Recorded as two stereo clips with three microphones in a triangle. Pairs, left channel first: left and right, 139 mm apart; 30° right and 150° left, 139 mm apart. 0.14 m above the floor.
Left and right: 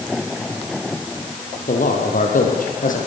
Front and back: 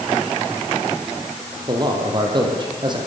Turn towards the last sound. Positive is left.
turn(degrees=95)